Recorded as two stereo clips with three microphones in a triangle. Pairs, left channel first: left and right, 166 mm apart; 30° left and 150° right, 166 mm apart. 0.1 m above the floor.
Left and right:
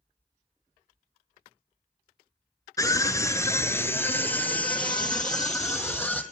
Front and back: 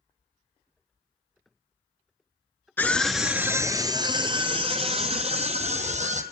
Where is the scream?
80° left, 1.1 m; by 6.2 s 175° left, 3 m.